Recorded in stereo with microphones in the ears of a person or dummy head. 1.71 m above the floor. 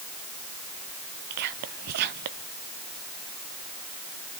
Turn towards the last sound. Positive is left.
turn(degrees=-50)  # may be behind; listen again after turning